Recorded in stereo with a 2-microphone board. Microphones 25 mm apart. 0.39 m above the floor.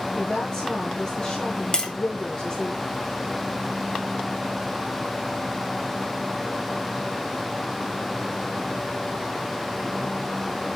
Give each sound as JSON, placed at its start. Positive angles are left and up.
{"t": 0.1, "sound": "a woman speaking", "side_deg": 45, "distance_m": 4.5}
{"t": 1.7, "sound": "tapping", "side_deg": 30, "distance_m": 2.0}